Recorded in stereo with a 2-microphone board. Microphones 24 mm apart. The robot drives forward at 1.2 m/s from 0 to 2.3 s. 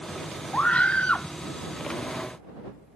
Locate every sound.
0.5 s a scream: 60° left (ahead or behind); by 1.3 s 75° left (ahead or behind)